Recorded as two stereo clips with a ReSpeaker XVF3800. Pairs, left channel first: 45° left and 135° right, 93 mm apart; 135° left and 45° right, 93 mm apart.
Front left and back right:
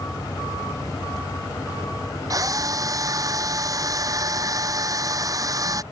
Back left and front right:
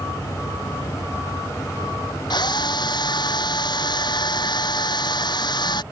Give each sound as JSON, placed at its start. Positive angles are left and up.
{"t": 2.3, "sound": "a drill", "azimuth_deg": 175}